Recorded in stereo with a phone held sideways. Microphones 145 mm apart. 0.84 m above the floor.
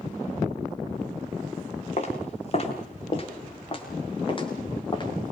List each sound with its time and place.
2.0 s footsteps: 50° left (ahead or behind), 7.5 m; by 5.3 s 35° left (ahead or behind), 8.5 m